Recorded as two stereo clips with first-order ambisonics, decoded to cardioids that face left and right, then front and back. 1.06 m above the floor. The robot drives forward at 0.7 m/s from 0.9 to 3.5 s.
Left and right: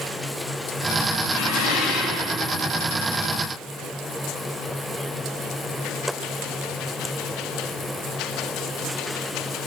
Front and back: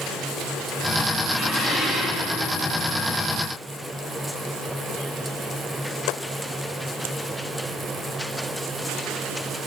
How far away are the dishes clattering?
About 4 m.